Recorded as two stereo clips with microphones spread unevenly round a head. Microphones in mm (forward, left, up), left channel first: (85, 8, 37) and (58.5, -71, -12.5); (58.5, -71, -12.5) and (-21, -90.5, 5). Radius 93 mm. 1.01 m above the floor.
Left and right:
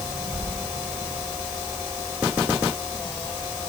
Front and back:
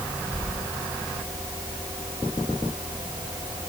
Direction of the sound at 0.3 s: 55° right.